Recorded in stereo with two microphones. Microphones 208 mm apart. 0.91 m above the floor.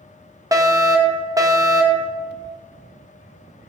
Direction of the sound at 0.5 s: 15° right (ahead or behind).